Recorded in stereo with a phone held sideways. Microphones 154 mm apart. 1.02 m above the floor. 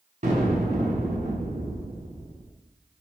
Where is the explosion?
50° right (ahead or behind), 5 m.